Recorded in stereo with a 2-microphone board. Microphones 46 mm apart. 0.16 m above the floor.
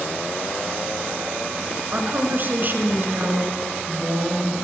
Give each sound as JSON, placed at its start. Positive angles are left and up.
{"t": 1.9, "sound": "a woman speaking", "side_deg": -45, "distance_m": 1.7}